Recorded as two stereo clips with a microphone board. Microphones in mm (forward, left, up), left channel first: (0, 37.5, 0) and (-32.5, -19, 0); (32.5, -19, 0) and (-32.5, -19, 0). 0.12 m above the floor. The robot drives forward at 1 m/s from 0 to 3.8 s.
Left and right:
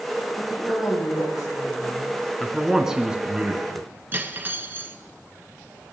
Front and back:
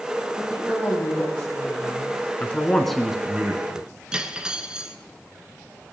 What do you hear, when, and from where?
0.4 s a woman speaking: 65° left, 5.5 m; by 2.2 s 85° left, 5 m
2.4 s a man speaking: 25° right, 1.4 m; by 3.9 s 165° right, 1.6 m
4.1 s cutlery clinking: 115° right, 1.0 m